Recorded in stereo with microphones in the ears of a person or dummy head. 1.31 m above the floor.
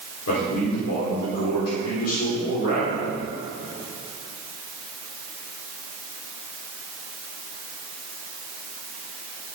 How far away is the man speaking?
About 5 m.